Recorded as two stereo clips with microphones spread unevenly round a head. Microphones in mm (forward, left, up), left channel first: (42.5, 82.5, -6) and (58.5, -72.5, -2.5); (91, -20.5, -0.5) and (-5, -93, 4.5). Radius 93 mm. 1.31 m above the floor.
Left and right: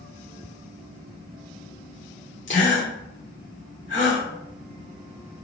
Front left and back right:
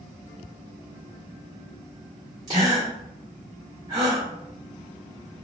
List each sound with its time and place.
2.5 s a gasp: 145° left, 1.3 m